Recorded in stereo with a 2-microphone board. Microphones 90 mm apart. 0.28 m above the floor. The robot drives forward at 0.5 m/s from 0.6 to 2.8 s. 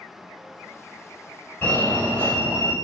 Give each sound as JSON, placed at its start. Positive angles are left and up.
{"t": 1.6, "sound": "a fire alarm", "side_deg": 20, "distance_m": 1.9}